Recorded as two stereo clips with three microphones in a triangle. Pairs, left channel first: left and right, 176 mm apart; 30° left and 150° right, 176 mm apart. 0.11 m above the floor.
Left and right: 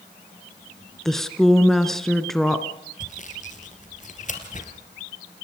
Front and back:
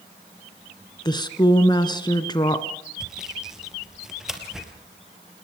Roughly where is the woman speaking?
Ahead.